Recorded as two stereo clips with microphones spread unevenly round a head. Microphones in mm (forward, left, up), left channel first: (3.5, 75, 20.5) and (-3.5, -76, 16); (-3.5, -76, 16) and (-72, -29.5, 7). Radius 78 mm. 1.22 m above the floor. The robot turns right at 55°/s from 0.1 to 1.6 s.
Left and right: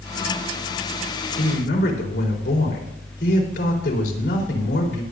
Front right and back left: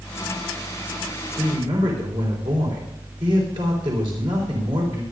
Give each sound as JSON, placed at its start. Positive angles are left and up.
{"t": 1.4, "sound": "a man speaking", "azimuth_deg": 90, "distance_m": 4.0}